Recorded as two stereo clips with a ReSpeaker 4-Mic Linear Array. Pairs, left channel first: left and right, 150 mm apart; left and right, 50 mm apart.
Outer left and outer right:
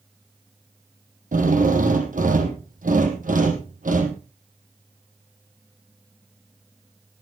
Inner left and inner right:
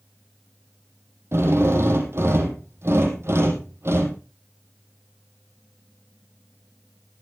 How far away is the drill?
About 4.5 m.